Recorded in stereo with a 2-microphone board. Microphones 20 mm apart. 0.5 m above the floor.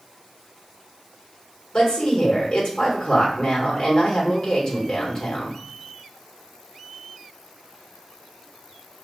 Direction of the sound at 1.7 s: 45° left (ahead or behind).